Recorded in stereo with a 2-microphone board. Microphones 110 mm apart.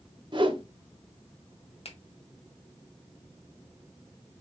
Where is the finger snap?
60° left (ahead or behind), 1.2 m.